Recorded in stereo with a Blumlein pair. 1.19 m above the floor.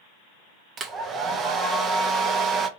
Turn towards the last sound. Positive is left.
turn(degrees=-20)